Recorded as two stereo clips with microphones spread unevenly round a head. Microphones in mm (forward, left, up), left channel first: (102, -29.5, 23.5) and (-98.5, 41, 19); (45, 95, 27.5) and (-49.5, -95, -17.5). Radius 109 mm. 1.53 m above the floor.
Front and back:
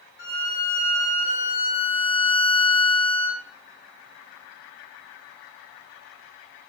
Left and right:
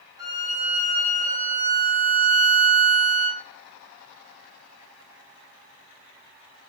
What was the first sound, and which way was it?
A violin, 35° right.